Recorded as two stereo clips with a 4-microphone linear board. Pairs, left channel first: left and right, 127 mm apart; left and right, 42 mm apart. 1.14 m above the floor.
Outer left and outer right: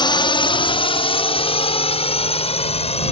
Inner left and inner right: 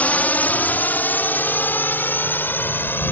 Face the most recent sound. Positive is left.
turn(degrees=55)  # may be behind; listen again after turning